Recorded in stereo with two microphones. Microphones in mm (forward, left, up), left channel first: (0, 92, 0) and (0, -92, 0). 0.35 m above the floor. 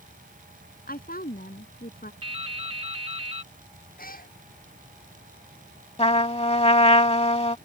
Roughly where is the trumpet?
Left.